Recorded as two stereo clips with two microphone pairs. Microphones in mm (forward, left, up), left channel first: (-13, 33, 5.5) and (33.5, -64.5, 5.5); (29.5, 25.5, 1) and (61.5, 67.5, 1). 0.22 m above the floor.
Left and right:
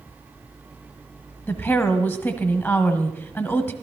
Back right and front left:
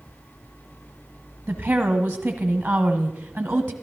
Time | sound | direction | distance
1.5 | a woman speaking | 60° left | 1.1 m